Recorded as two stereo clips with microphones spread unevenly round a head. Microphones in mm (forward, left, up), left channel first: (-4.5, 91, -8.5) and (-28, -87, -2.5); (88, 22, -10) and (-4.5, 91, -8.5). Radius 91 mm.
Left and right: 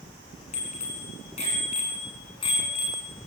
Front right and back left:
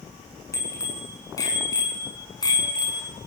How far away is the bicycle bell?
About 7.5 m.